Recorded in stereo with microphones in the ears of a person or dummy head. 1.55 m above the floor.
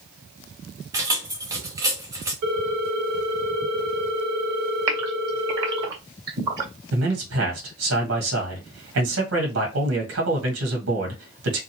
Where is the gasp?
25° right (ahead or behind), 1.6 m.